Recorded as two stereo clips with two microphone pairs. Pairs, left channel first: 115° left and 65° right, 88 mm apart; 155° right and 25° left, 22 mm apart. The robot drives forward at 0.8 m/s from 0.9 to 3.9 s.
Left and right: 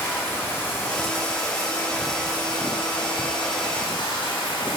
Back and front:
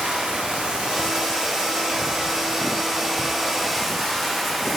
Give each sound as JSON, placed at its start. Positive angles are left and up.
{"t": 0.0, "sound": "running water", "azimuth_deg": 50, "distance_m": 2.5}